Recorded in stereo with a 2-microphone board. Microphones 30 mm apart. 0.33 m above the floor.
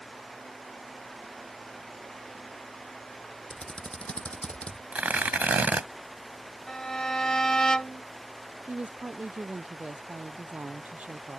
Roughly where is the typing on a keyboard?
Left.